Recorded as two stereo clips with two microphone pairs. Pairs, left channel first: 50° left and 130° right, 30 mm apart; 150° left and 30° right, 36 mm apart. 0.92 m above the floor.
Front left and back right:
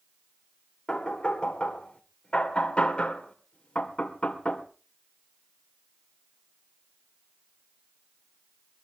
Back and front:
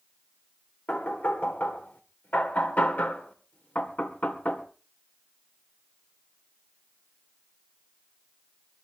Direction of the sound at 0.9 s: 110° left.